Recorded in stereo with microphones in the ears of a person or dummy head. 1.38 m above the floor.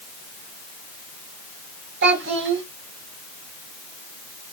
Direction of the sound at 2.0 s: 70° right (ahead or behind).